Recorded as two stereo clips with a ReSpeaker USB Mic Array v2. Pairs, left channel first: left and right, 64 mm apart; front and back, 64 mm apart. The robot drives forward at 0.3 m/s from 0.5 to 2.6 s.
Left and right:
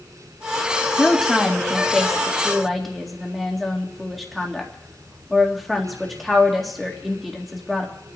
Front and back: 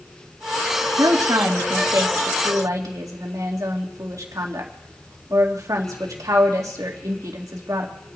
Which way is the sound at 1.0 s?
Straight behind.